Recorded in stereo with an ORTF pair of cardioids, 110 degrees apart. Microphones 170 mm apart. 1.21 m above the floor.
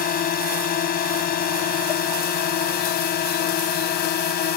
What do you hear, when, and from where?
0.0 s a drone: 60° left; by 4.6 s 65° left